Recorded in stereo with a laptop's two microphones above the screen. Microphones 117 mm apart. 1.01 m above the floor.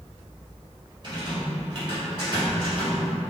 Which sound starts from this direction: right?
A rattle, at 1.0 s.